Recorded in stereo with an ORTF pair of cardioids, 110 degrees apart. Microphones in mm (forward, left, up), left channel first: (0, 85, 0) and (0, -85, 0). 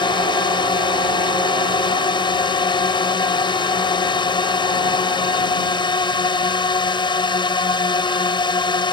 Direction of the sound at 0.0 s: 25° left.